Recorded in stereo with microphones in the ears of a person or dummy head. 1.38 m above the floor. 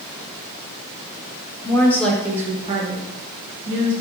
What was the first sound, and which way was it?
A woman speaking, 20° left (ahead or behind).